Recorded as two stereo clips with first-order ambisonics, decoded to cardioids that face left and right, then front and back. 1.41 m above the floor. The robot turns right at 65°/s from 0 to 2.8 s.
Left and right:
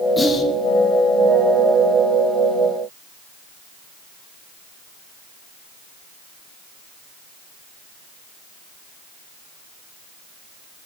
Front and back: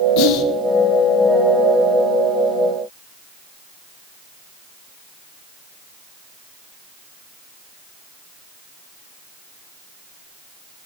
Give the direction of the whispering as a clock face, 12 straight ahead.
12 o'clock.